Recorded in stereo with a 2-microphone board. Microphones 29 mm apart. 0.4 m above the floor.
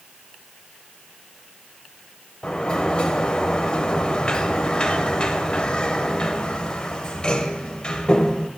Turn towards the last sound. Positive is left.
turn(degrees=35)  # may be behind; listen again after turning